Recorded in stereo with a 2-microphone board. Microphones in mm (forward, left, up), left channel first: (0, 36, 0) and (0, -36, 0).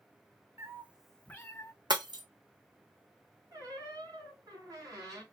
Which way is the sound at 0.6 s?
40° right (ahead or behind).